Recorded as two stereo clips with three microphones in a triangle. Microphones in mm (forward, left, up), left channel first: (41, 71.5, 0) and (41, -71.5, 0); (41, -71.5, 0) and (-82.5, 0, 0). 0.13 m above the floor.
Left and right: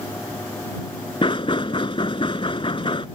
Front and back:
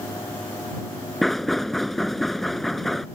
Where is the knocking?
60° left.